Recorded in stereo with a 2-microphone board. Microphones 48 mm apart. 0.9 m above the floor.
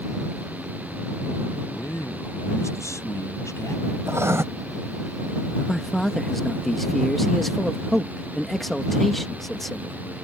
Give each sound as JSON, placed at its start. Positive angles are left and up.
{"t": 1.7, "sound": "a man speaking", "side_deg": 80}
{"t": 4.1, "sound": "writing", "side_deg": -65}
{"t": 5.6, "sound": "a man speaking", "side_deg": 5}